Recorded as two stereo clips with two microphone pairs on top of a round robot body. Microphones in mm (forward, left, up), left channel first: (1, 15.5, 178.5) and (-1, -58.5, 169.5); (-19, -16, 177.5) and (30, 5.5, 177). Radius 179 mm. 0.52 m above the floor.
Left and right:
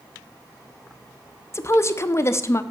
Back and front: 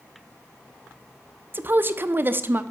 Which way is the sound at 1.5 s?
45° left.